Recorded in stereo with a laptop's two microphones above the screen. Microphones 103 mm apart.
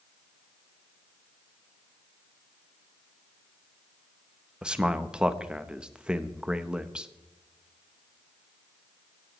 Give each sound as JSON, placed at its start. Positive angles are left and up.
{"t": 4.6, "sound": "a man speaking", "side_deg": -10, "distance_m": 0.7}